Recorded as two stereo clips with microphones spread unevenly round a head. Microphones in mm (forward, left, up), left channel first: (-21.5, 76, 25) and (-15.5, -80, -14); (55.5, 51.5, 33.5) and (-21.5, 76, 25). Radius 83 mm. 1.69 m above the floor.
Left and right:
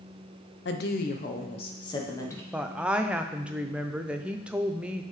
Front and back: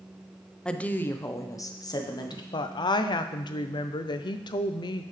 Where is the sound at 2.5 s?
5° left, 0.5 m.